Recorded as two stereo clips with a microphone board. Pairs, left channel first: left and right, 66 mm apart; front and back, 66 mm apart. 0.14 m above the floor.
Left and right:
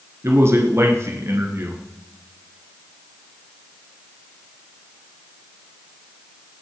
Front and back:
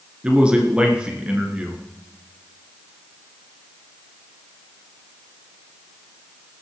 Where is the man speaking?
110° right, 2.5 m.